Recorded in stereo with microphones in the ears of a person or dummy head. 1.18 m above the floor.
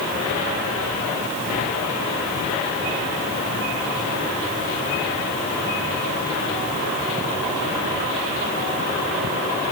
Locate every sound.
Only background noise.